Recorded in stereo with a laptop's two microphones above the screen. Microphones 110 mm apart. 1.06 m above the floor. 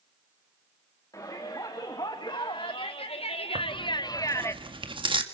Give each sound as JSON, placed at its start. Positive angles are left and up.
{"t": 1.1, "sound": "a shout", "side_deg": 30, "distance_m": 2.5}
{"t": 3.5, "sound": "tearing paper", "side_deg": -50, "distance_m": 1.9}